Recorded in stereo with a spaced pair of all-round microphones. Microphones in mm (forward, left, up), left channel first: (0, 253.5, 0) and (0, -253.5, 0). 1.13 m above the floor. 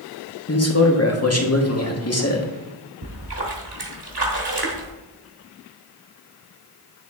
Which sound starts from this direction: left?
A man speaking, at 0.5 s.